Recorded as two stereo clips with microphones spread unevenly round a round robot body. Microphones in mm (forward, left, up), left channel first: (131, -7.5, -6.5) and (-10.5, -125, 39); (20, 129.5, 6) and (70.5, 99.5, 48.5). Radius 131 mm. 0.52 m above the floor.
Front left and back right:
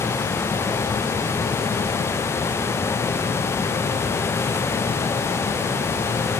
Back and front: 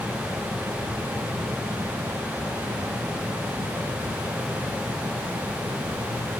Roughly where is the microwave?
No microwave in this recording.